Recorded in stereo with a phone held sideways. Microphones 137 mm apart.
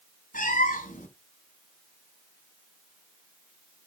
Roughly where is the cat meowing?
Left.